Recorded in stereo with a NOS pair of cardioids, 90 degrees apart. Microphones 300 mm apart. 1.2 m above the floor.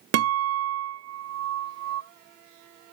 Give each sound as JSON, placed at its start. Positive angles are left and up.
{"t": 0.1, "sound": "a guitar", "azimuth_deg": -60, "distance_m": 0.6}